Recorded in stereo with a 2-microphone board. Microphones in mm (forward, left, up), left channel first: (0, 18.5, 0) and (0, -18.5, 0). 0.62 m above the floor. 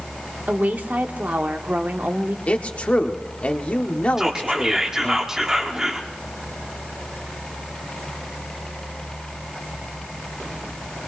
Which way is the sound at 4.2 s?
15° right (ahead or behind).